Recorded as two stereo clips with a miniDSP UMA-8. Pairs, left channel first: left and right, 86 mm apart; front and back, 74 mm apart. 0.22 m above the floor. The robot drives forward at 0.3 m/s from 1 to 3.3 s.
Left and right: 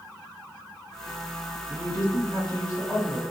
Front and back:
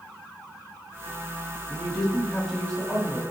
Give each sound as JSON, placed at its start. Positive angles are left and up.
{"t": 1.7, "sound": "a woman speaking", "azimuth_deg": -60, "distance_m": 1.8}